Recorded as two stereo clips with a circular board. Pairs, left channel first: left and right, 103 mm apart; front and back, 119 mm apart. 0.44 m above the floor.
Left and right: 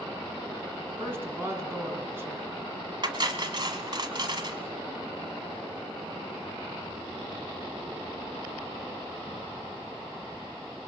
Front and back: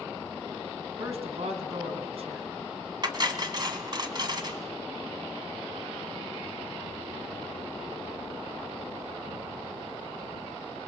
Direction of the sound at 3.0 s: 130° right.